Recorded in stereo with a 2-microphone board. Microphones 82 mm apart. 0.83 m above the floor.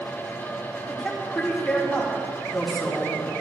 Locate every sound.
0.9 s a woman speaking: 5° left (ahead or behind), 2.5 m